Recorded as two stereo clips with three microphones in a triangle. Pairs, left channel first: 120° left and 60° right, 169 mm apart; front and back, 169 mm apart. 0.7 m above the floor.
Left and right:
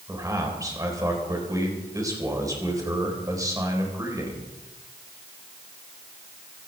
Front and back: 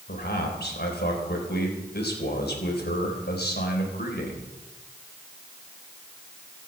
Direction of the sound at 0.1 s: 10° left.